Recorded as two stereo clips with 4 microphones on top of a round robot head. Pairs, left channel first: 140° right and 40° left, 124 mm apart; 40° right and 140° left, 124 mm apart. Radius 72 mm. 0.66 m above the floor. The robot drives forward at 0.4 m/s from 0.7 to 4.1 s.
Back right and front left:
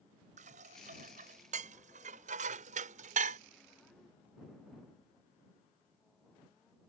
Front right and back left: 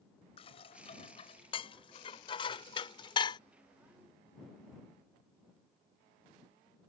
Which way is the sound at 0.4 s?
10° left.